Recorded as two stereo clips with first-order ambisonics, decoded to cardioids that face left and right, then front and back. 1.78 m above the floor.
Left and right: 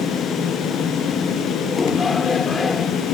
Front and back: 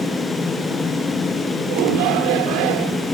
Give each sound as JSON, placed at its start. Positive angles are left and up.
{"t": 1.7, "sound": "a shout", "azimuth_deg": 165}